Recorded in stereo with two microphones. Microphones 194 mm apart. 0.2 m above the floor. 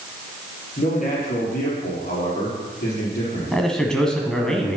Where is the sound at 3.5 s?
5° left (ahead or behind), 1.3 m.